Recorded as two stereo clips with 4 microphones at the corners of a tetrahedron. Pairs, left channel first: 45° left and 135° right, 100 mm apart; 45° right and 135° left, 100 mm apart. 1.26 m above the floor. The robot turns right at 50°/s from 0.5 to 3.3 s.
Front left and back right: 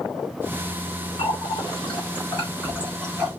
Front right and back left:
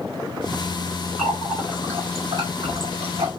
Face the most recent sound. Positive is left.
turn(degrees=140)